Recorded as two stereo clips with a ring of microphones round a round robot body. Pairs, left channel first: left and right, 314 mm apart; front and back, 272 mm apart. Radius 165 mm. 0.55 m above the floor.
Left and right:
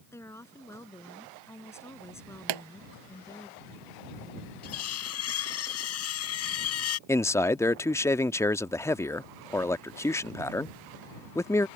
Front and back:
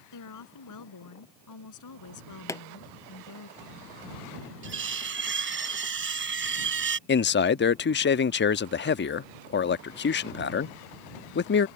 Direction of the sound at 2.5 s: 80° right.